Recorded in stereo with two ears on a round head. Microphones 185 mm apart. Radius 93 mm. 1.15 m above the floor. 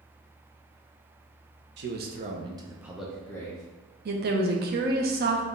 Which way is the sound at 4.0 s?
45° right (ahead or behind).